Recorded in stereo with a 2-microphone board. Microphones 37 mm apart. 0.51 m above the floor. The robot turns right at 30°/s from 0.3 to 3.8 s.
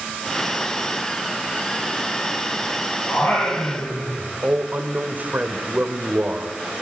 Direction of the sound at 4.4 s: 45° right (ahead or behind).